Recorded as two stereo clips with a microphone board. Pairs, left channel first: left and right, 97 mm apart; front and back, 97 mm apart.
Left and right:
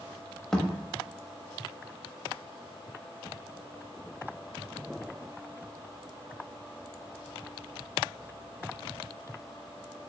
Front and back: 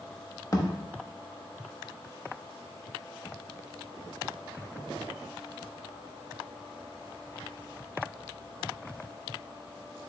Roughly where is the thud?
Ahead.